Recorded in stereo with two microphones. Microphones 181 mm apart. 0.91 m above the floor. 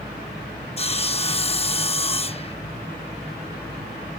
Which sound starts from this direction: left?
Sawing, at 0.8 s.